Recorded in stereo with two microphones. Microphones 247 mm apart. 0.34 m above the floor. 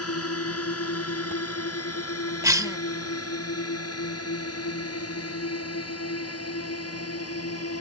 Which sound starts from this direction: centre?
A cough, at 2.4 s.